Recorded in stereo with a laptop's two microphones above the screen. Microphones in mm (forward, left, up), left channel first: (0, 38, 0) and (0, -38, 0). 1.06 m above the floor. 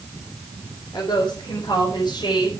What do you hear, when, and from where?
0.9 s a woman speaking: 80° left, 3.5 m; by 2.5 s 85° left, 5 m